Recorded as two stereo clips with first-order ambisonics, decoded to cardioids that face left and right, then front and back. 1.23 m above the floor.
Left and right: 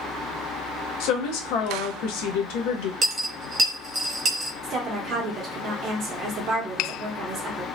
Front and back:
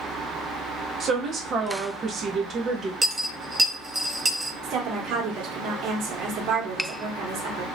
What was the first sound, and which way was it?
A woman speaking, 115° left.